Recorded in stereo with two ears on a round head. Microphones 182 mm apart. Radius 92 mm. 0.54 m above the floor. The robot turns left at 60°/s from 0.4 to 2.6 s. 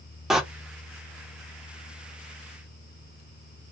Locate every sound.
0.3 s a door slam: 5° right (ahead or behind), 0.5 m; by 0.4 s centre (ahead or behind), 0.5 m